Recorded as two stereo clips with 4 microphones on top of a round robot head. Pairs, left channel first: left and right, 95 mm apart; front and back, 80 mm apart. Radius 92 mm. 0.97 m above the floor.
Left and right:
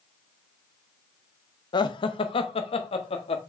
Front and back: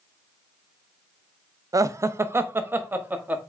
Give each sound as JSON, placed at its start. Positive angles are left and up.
{"t": 1.7, "sound": "laughter", "azimuth_deg": 135, "distance_m": 0.8}